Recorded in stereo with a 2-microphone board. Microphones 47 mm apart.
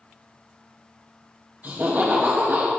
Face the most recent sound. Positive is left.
turn(degrees=-40)  # may be behind; listen again after turning